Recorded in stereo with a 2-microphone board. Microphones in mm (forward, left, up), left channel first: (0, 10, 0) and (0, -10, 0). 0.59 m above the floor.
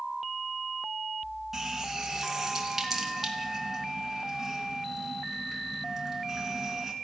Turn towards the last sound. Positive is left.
turn(degrees=-15)  # may be behind; listen again after turning